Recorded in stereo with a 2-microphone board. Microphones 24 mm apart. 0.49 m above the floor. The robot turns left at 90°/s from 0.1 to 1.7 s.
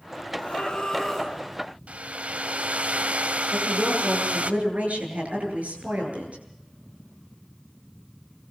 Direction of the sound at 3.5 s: 70° right (ahead or behind).